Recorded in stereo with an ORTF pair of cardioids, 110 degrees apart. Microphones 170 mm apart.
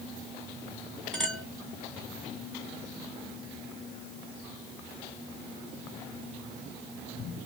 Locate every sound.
1.1 s a clink: 5° left, 1.9 m